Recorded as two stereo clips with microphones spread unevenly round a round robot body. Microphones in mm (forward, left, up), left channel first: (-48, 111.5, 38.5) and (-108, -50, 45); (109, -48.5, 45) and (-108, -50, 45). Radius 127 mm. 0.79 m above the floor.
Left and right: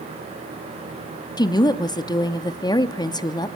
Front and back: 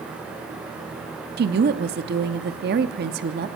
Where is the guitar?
No guitar in this recording.